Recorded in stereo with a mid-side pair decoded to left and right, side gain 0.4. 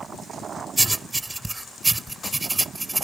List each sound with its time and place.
0.8 s writing: 20° right